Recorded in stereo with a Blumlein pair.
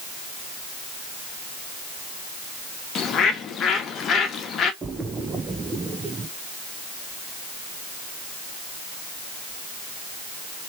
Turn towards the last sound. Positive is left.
turn(degrees=-15)